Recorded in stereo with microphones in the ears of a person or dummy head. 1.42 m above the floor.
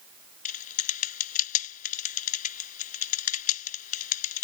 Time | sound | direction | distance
0.5 | typing on a keyboard | 40° left (ahead or behind) | ?